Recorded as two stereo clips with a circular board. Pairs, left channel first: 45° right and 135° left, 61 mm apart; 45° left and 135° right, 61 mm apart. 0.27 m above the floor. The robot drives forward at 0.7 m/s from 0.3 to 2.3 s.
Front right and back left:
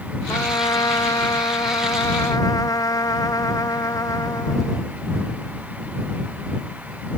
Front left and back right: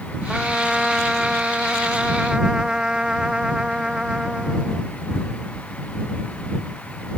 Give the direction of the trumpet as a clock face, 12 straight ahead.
2 o'clock.